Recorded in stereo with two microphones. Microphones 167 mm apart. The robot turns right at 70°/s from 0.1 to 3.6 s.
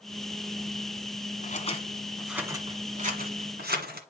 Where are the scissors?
55° left (ahead or behind), 1.7 m; by 4.0 s 75° right (ahead or behind), 1.7 m.